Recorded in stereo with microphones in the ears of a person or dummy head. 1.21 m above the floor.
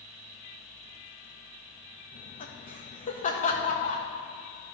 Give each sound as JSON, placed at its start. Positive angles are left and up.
{"t": 2.1, "sound": "laughter", "side_deg": 40, "distance_m": 1.4}